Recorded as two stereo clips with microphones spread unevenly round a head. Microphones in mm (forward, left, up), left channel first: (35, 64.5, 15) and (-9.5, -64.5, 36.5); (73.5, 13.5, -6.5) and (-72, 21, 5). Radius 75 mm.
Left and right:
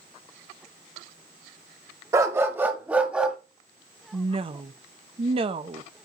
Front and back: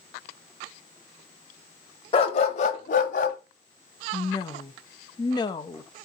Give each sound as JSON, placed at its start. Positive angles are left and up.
{"t": 2.1, "sound": "a dog barking", "azimuth_deg": -55, "distance_m": 1.0}
{"t": 4.1, "sound": "a woman speaking", "azimuth_deg": -60, "distance_m": 0.8}